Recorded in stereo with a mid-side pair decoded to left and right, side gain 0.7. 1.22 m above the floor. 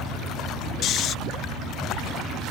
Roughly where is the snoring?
Ahead left.